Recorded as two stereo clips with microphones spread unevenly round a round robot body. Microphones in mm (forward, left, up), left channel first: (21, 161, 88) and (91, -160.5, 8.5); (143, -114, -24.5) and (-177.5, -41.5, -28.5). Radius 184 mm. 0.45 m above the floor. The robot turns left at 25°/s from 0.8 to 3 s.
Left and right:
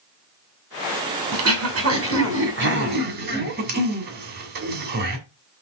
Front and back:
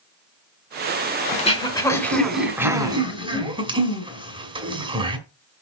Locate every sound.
1.3 s throat clearing: 80° right, 1.9 m; by 5.2 s 120° right, 1.9 m